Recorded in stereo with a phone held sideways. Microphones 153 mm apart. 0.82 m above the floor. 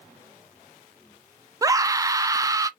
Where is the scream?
20° right (ahead or behind), 0.8 m.